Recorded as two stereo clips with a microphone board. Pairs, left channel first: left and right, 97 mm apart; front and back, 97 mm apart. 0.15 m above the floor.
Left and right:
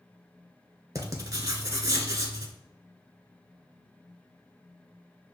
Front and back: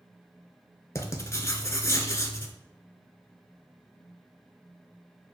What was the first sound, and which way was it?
Writing, 45° right.